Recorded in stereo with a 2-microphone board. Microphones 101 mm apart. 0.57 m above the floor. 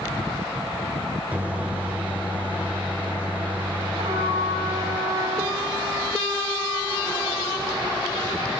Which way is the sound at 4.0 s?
75° right (ahead or behind).